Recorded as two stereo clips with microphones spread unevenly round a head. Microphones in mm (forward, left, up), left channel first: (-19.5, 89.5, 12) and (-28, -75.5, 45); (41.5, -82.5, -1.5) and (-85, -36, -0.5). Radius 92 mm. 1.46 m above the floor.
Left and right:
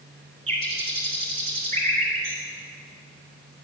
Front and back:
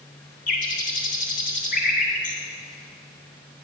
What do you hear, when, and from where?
0.5 s a bird: 35° right, 3 m